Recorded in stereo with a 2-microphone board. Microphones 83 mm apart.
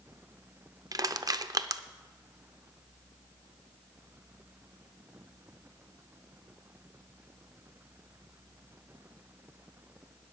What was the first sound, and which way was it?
Crushing, 50° right (ahead or behind).